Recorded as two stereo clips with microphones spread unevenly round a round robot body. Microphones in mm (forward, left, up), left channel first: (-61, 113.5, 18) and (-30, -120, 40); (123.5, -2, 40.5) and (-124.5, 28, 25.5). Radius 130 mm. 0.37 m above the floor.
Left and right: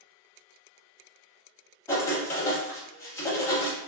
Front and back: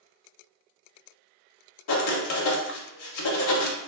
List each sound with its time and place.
1.9 s writing: 20° left, 0.5 m